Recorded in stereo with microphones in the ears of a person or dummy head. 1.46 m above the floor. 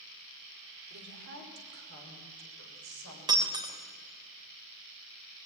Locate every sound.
0.9 s a woman speaking: 60° right (ahead or behind), 5 m; by 3.2 s 70° right (ahead or behind), 7 m
3.3 s breaking glass: 25° right (ahead or behind), 3 m